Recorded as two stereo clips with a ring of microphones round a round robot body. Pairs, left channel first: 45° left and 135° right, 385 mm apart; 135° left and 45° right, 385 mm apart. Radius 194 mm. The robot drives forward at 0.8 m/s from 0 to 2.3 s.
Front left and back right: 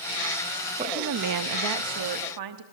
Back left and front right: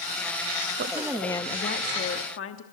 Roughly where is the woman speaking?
Right.